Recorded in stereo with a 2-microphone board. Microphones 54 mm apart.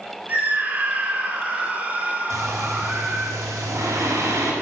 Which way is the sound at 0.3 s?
30° right (ahead or behind).